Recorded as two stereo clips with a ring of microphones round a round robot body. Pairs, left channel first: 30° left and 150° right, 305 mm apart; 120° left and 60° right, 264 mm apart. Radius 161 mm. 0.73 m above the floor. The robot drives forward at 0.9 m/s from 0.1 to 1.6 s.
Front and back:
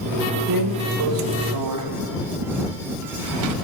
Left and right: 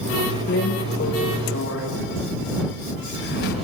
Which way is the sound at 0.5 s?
Straight behind.